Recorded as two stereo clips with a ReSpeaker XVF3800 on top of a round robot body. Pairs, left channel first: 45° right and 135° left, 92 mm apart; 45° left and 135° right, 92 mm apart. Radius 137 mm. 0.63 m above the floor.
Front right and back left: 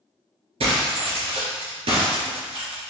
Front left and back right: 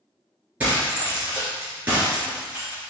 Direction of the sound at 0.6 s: 150° left.